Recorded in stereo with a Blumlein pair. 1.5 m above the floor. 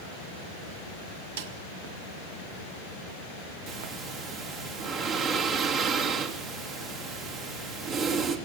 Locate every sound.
1.4 s a snare drum: 55° right, 1.7 m
3.7 s breathing: 35° right, 3.5 m